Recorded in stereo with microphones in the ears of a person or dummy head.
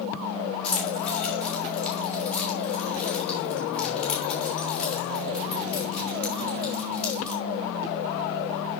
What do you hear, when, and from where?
0.6 s keys jangling: 5° left (ahead or behind), 1.9 m